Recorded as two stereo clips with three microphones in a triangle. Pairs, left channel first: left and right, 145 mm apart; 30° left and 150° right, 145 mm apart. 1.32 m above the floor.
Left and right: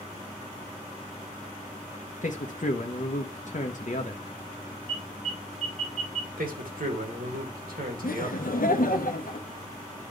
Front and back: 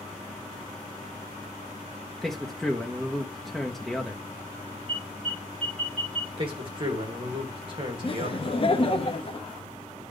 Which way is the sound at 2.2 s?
120° left.